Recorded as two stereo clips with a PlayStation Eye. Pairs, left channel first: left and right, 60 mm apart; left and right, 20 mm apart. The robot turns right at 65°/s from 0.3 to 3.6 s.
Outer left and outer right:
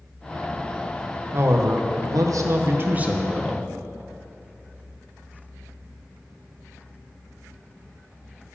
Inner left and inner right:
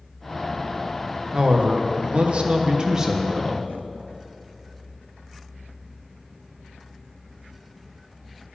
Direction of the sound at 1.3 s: 135° right.